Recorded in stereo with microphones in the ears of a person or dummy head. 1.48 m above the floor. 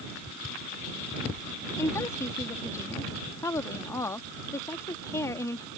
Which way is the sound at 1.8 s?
15° left (ahead or behind).